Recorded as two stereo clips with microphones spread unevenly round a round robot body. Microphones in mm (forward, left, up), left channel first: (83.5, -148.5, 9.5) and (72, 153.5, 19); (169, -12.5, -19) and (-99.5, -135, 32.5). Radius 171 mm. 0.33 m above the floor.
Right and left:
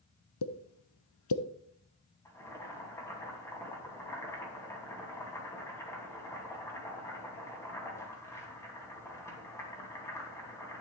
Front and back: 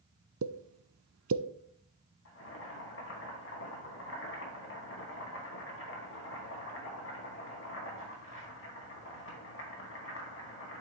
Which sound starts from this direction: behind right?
A pop, at 0.4 s.